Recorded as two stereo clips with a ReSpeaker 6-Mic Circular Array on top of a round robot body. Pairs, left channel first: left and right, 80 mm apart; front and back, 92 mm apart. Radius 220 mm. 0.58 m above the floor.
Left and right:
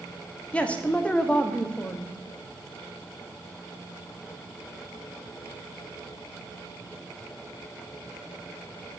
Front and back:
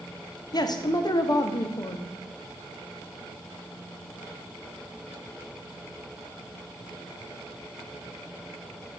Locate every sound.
0.5 s a man speaking: 20° left, 1.0 m